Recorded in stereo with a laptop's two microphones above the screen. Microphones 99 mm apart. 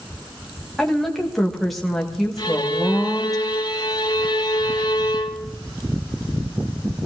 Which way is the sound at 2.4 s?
55° left (ahead or behind).